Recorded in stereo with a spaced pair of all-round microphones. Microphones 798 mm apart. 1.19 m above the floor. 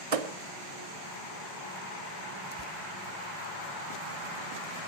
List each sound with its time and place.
0.1 s a thud: 45° right (ahead or behind), 0.8 m
2.5 s tearing paper: 35° left (ahead or behind), 0.9 m